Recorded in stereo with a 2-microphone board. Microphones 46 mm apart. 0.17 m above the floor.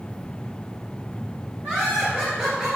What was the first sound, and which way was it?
Laughter, 20° right (ahead or behind).